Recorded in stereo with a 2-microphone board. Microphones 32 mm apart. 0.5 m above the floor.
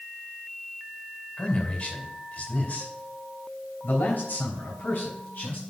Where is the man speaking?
35° left (ahead or behind), 2.5 m; by 5.6 s 70° left (ahead or behind), 4 m.